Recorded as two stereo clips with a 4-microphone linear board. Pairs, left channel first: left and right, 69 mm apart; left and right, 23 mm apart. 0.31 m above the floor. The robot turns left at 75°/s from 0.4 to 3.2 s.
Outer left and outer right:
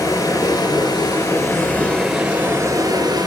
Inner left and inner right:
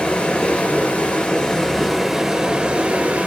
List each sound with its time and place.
0.0 s running water: 125° left, 2.5 m; by 3.3 s 85° right, 2.5 m